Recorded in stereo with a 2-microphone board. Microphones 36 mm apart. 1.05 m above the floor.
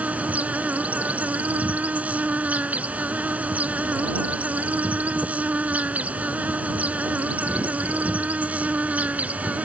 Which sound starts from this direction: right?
An insect, at 0.0 s.